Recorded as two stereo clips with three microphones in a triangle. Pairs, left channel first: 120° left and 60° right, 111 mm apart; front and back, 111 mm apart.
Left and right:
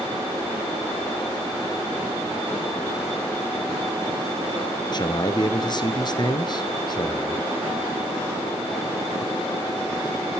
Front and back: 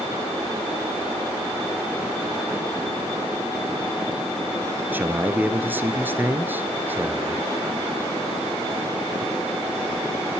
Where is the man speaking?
115° left, 1.6 m.